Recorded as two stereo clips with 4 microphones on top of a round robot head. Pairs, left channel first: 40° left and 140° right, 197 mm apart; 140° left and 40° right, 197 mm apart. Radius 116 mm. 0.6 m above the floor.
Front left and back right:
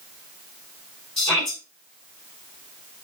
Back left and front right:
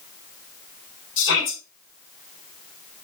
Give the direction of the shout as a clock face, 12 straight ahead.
8 o'clock.